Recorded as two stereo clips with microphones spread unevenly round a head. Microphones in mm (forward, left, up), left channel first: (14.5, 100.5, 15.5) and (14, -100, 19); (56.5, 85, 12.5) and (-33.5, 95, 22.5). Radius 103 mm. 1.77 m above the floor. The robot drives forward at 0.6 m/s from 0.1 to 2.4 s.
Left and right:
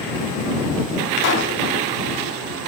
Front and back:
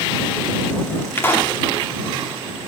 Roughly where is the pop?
Ahead left.